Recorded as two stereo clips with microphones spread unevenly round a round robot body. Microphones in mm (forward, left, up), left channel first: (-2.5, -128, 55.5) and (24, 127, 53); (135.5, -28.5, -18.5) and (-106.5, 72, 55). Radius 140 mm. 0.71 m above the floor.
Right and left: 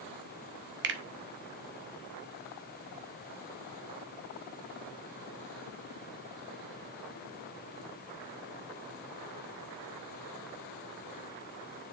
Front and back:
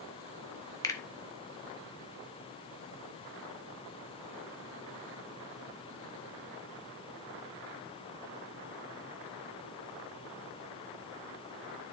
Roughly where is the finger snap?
Ahead left.